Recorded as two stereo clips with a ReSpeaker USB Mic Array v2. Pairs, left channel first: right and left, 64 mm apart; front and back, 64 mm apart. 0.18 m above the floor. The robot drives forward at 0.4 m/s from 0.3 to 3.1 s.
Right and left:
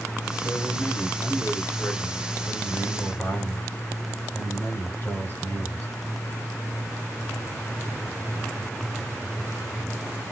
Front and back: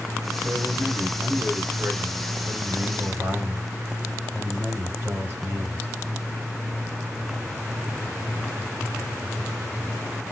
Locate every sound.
0.4 s a man speaking: 100° right, 1.5 m; by 5.9 s 140° right, 1.9 m